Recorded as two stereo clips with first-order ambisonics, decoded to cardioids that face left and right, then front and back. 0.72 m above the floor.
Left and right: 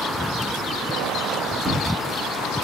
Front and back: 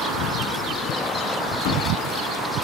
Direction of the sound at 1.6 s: 20° right.